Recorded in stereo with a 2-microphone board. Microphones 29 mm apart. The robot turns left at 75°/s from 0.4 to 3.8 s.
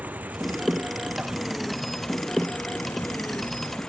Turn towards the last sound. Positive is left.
turn(degrees=30)